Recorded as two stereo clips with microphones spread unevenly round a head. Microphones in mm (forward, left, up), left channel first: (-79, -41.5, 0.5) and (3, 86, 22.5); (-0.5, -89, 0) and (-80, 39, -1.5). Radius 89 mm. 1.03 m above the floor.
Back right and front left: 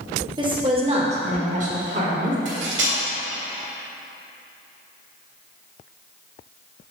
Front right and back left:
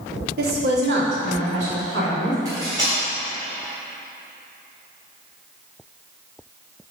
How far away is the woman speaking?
About 1.8 m.